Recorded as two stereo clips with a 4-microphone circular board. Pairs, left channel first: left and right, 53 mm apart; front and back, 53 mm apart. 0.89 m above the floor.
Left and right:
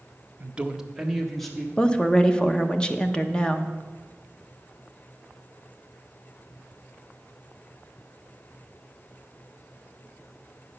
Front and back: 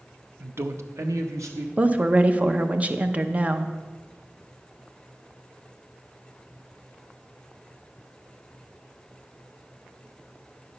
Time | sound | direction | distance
0.4 | a man speaking | 135° right | 0.5 m
1.8 | a woman speaking | 150° left | 0.6 m